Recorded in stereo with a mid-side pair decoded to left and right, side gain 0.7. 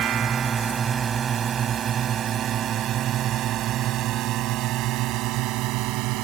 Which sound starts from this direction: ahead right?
A drone, at 0.0 s.